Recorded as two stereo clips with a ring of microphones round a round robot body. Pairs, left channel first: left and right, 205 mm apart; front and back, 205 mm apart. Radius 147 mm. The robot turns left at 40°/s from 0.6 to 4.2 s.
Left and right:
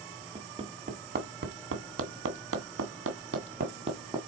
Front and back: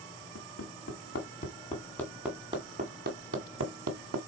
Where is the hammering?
30° right, 1.8 m; by 4.2 s 170° right, 1.8 m.